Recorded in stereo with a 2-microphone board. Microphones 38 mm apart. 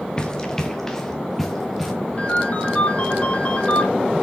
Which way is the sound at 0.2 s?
20° left (ahead or behind).